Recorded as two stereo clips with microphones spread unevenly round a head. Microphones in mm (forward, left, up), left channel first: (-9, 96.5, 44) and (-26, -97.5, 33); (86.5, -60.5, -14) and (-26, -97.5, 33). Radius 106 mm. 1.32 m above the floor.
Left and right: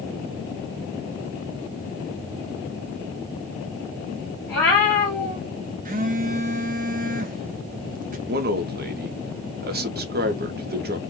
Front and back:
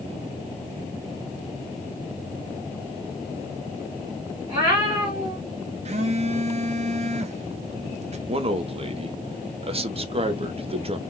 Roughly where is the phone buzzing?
Behind right.